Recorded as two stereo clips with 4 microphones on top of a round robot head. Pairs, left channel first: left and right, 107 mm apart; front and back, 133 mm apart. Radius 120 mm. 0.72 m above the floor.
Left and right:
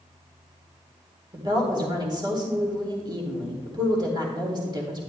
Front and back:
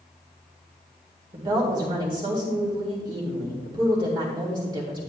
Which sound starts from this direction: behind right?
A woman speaking, at 1.3 s.